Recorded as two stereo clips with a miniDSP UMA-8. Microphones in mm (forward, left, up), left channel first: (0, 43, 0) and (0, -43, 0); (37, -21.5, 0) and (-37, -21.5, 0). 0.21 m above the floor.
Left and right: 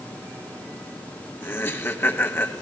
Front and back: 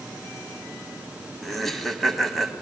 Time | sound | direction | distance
1.4 | laughter | 85° left | 1.0 m